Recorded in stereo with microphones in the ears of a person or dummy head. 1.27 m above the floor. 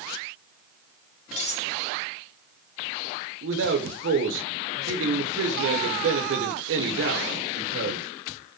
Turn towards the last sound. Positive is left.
turn(degrees=-65)  # may be behind; listen again after turning